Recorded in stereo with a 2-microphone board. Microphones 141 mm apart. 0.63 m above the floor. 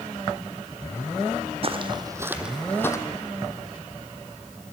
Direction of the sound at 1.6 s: 45° right (ahead or behind).